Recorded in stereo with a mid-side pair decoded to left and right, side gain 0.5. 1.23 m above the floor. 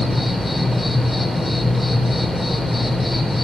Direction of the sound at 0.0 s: 15° left.